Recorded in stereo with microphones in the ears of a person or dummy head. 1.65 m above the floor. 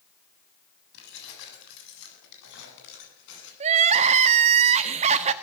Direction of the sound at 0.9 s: 65° left (ahead or behind).